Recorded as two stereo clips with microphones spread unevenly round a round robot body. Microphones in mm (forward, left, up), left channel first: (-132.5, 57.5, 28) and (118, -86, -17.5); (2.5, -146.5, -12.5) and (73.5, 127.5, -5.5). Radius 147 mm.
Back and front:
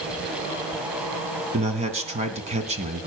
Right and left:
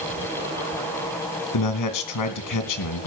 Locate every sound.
1.5 s a man speaking: 95° right, 2.5 m